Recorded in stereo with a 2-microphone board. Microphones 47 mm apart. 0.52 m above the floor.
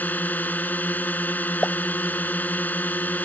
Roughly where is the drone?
Left.